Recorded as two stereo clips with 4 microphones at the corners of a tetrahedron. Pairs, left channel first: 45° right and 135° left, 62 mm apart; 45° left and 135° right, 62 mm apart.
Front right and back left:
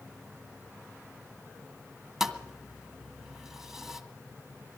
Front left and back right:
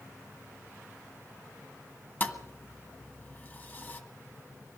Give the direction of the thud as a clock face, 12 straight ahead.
10 o'clock.